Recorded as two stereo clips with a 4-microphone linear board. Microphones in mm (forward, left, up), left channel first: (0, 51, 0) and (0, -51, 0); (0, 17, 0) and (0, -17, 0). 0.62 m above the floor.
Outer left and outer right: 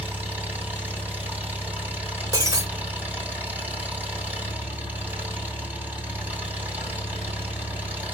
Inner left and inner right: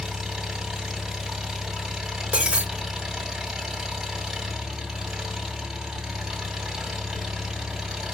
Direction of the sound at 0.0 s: 15° right (ahead or behind).